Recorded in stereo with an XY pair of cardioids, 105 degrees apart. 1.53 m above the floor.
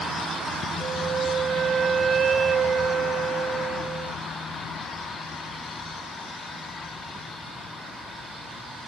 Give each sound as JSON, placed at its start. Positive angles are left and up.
{"t": 0.8, "sound": "a flute", "azimuth_deg": -45, "distance_m": 1.4}